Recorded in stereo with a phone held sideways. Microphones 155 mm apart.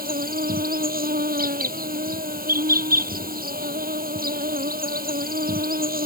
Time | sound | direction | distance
0.0 | an insect | 80° right | ?